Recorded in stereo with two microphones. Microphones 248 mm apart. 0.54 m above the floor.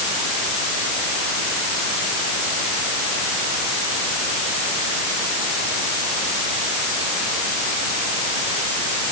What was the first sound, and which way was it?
Only background noise.